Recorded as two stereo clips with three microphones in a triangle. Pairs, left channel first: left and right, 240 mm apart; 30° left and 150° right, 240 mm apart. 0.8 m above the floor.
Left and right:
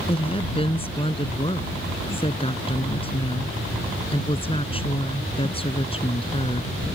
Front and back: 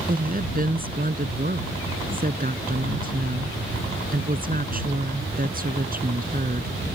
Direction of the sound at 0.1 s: 160° left.